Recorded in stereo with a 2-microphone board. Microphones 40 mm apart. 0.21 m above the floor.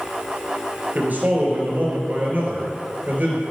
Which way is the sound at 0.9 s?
50° right (ahead or behind).